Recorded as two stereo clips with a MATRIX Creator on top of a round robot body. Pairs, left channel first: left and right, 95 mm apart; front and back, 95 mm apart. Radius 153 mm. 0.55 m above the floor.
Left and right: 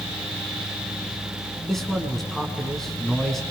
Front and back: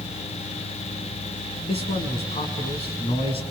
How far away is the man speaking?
About 7.5 m.